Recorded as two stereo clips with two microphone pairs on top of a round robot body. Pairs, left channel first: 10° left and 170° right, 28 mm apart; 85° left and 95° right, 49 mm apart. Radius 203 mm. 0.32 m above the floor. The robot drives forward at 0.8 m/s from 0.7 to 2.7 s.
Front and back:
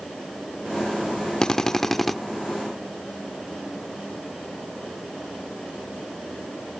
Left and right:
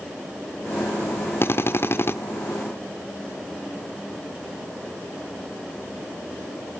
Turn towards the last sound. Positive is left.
turn(degrees=115)